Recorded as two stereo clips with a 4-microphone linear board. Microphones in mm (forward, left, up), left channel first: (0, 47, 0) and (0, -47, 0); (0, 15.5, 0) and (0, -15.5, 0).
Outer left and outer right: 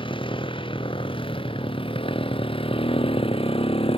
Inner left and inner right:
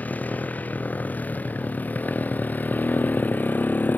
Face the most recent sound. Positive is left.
turn(degrees=80)